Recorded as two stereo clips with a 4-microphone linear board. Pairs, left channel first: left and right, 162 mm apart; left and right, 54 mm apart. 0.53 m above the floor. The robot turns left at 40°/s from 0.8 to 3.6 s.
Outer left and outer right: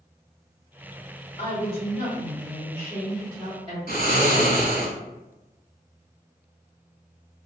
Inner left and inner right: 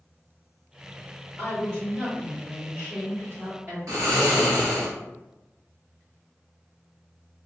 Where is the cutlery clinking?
I don't hear cutlery clinking.